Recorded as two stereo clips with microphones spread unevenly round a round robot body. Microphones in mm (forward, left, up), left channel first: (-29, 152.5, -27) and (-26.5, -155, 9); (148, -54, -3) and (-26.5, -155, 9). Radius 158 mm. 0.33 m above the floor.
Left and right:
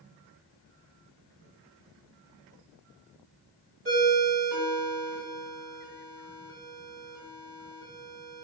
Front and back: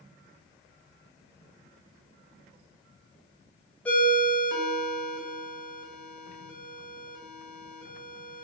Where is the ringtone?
45° right, 1.0 m.